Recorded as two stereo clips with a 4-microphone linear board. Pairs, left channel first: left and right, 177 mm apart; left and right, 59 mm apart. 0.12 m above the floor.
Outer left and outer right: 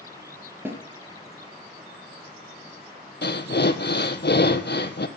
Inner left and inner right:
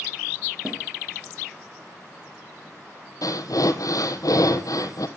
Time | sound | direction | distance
0.7 | a snare drum | 15° right (ahead or behind) | 2.5 m
3.2 | breathing | 75° left (ahead or behind) | 1.0 m